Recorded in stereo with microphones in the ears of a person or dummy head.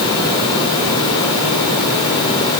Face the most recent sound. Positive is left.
No sound to turn to.